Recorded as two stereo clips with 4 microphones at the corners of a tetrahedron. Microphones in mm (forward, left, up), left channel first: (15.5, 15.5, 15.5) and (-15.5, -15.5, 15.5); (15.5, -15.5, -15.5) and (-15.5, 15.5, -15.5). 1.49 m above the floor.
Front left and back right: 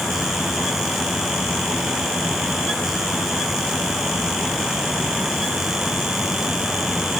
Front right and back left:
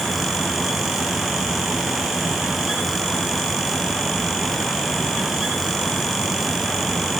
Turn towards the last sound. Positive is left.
No sound to turn to.